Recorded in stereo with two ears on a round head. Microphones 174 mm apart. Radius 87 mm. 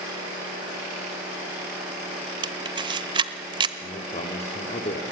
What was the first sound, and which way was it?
A camera shutter, 25° right (ahead or behind).